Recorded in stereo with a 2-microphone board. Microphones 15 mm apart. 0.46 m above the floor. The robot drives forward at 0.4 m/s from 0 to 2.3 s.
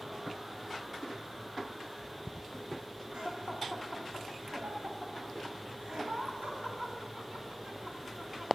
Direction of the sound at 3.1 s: 70° right (ahead or behind).